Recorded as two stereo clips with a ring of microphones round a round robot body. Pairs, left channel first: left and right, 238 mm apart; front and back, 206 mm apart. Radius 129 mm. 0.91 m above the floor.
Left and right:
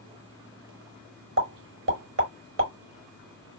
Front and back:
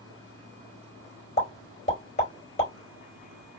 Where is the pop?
60° right, 3 m.